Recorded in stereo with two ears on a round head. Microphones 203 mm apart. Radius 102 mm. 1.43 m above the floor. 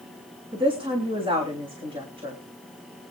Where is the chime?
I don't hear a chime.